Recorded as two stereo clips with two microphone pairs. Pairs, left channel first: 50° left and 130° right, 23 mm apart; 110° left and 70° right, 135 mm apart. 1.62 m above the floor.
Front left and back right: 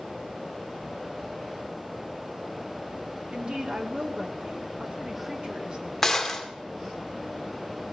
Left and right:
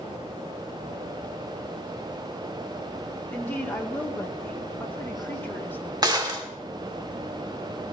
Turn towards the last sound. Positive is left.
turn(degrees=-20)